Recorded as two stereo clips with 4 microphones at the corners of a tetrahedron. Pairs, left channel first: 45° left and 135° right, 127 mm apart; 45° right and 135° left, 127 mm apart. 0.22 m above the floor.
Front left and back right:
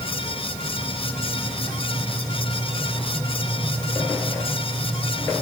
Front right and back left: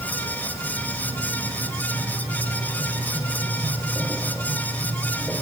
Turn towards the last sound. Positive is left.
No sound to turn to.